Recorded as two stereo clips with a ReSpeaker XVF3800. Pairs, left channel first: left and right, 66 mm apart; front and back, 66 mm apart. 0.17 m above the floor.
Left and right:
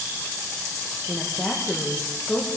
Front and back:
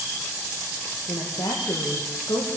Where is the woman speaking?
Straight ahead, 7 m.